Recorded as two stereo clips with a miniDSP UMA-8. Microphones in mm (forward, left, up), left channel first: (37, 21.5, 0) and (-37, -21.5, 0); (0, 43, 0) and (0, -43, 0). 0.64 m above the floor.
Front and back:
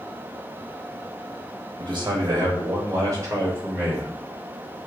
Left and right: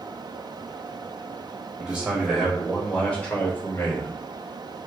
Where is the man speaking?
155° right, 1.3 m; by 4.1 s 130° left, 1.1 m.